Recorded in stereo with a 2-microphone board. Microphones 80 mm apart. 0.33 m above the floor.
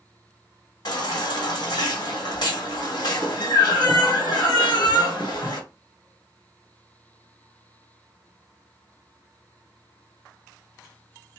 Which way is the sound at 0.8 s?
60° left (ahead or behind).